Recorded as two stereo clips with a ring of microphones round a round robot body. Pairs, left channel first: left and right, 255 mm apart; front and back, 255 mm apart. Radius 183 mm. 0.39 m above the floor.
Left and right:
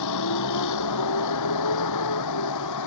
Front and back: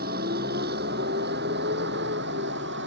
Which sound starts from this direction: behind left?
A vehicle, at 0.0 s.